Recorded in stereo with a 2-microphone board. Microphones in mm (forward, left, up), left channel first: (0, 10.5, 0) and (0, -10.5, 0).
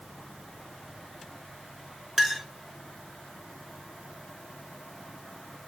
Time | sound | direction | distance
2.2 | a clink | 10° right (ahead or behind) | 1.1 m